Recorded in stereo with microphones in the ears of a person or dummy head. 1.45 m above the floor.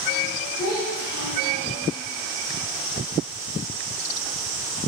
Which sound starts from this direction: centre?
A child speaking, at 0.6 s.